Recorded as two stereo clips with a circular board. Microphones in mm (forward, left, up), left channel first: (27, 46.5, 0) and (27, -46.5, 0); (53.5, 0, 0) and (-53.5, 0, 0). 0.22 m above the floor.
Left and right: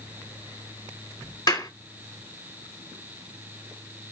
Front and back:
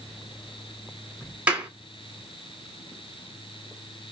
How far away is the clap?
About 1.7 m.